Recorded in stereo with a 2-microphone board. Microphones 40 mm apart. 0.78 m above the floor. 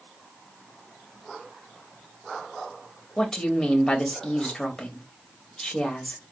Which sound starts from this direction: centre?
A woman speaking, at 3.2 s.